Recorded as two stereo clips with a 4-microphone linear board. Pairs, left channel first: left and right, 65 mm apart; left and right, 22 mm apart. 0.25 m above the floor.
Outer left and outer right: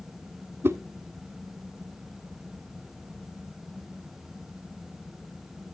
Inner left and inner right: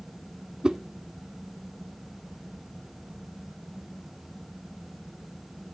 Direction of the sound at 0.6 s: 40° right (ahead or behind).